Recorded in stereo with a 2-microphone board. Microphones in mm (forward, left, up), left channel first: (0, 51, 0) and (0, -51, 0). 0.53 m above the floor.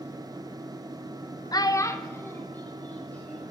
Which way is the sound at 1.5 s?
40° left (ahead or behind).